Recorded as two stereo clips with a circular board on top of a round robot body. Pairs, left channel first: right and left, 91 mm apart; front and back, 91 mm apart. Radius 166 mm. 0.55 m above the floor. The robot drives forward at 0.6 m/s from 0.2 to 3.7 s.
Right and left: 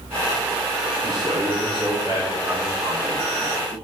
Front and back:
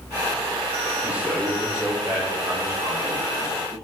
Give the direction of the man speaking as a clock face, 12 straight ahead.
9 o'clock.